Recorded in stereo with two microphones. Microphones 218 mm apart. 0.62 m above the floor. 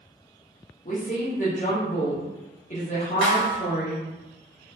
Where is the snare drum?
70° left (ahead or behind), 0.8 m.